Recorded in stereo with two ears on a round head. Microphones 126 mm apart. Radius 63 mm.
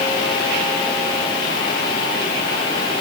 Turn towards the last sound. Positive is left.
No sound to turn to.